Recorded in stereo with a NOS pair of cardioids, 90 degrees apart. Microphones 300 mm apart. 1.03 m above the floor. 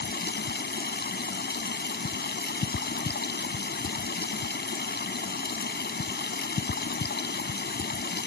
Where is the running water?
30° left.